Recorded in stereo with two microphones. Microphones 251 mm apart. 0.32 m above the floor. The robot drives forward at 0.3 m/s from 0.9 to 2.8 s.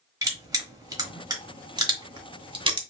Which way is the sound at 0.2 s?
15° right (ahead or behind).